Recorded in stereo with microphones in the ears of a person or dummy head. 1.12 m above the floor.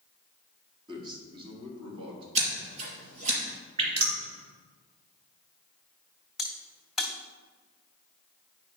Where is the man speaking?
25° right (ahead or behind), 2 m; by 2.2 s 35° right (ahead or behind), 3 m.